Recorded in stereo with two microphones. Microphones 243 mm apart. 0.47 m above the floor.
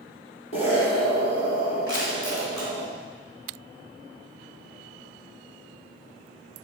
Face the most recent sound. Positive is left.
turn(degrees=65)  # may be behind; listen again after turning